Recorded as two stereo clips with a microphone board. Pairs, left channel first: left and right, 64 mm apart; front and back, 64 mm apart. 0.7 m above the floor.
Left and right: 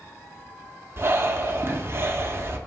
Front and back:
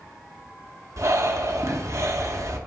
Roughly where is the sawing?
No sawing in this recording.